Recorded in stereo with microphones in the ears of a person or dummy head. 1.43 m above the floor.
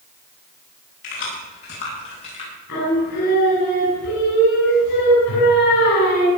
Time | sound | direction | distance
1.0 | keys jangling | 55° left (ahead or behind) | 9 m
2.7 | singing | 65° left (ahead or behind) | 9 m